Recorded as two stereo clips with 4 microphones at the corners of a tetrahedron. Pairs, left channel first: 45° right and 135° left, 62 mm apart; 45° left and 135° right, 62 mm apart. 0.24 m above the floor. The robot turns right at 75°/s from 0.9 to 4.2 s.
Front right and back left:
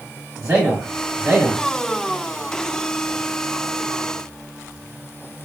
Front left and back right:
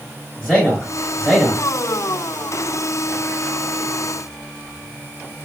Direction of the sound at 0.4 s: 110° left.